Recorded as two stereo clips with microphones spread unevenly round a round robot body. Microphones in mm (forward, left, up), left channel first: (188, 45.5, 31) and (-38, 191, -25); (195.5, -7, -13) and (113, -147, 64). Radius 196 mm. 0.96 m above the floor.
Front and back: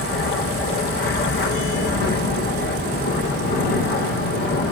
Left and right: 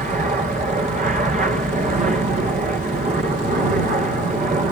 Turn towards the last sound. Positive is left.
turn(degrees=-75)